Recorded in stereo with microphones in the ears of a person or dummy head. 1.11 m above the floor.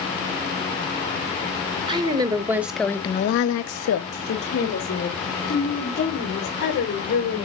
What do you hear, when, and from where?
1.9 s a woman speaking: 25° right (ahead or behind), 1.3 m; by 7.5 s 50° left (ahead or behind), 4 m